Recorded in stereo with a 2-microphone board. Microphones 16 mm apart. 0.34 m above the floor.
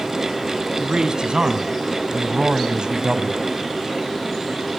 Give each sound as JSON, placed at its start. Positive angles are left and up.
{"t": 0.8, "sound": "a man speaking", "side_deg": -50, "distance_m": 3.0}